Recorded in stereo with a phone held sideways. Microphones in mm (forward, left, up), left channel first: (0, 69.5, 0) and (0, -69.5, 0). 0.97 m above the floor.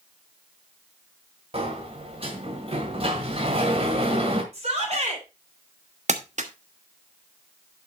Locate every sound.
1.5 s a sliding door: 45° right (ahead or behind), 1.7 m
4.5 s a shout: 50° right (ahead or behind), 4 m
6.1 s crumpling: 55° right (ahead or behind), 1.2 m